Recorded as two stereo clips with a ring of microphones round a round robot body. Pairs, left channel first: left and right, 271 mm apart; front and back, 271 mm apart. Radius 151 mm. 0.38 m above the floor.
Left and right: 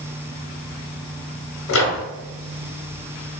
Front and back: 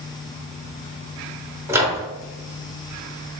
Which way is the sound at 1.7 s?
100° left.